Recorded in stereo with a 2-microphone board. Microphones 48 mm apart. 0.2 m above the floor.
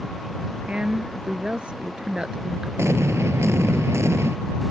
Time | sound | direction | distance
0.7 | a woman speaking | 20° right (ahead or behind) | ?
2.8 | an explosion | 70° right (ahead or behind) | ?